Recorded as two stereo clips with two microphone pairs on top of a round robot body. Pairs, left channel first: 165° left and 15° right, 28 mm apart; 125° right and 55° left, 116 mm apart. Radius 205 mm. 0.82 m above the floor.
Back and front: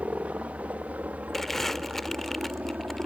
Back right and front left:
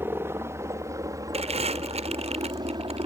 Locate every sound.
0.0 s a helicopter: 10° right; by 3.1 s 10° left
1.3 s crumpling: 85° left